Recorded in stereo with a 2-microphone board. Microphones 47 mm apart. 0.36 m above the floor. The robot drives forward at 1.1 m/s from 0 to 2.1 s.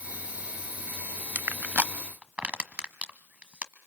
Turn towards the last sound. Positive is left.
turn(degrees=-30)  # may be behind; listen again after turning